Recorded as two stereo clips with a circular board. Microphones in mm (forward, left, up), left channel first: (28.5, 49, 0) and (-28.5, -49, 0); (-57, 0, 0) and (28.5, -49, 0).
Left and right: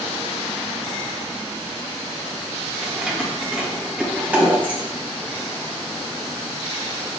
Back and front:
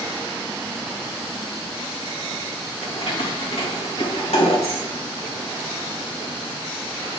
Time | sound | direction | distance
2.8 | keys jangling | 155° left | 3 m